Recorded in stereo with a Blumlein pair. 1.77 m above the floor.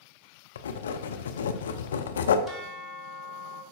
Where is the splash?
No splash in this recording.